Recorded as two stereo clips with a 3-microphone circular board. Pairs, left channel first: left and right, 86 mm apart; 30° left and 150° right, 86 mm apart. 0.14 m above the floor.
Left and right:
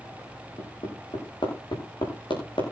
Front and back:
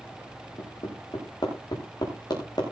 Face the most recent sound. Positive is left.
turn(degrees=65)